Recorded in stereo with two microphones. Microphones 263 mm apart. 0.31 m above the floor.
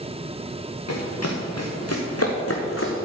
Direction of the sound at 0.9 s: 80° left.